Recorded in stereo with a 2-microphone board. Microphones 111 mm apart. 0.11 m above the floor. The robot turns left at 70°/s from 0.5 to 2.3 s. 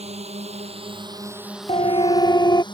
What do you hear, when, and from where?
0.0 s a drone: 65° right (ahead or behind); by 2.7 s 40° left (ahead or behind)
1.7 s a siren: 90° left; by 2.6 s 45° left